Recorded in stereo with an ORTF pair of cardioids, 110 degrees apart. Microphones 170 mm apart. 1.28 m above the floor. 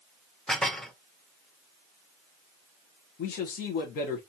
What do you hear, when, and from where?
0.5 s dishes clattering: 5° left, 0.7 m
3.2 s a man speaking: 65° left, 1.0 m